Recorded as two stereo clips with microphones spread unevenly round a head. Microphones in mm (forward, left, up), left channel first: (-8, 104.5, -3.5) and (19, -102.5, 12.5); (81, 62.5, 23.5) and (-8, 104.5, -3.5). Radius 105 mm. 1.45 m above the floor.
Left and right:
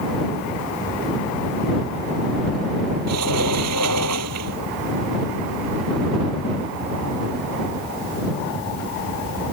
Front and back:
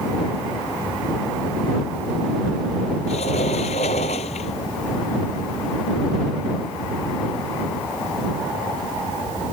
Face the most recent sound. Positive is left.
turn(degrees=-75)